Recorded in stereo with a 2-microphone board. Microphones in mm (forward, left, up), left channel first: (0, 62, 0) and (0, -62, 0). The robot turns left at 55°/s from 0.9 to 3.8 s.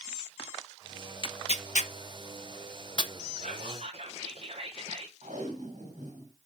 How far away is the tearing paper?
About 0.7 m.